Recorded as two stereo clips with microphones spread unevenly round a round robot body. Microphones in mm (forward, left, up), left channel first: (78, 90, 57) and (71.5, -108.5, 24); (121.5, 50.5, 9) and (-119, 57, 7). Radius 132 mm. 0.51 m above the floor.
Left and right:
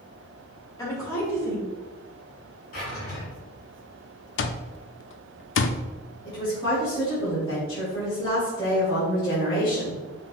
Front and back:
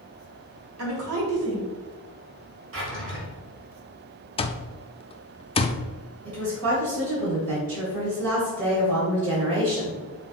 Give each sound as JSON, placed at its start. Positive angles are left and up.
{"t": 0.8, "sound": "a woman speaking", "azimuth_deg": 165, "distance_m": 2.5}
{"t": 2.7, "sound": "a drawer", "azimuth_deg": 145, "distance_m": 2.5}
{"t": 4.4, "sound": "an alarm clock", "azimuth_deg": 65, "distance_m": 0.6}
{"t": 6.2, "sound": "a woman speaking", "azimuth_deg": 165, "distance_m": 3.0}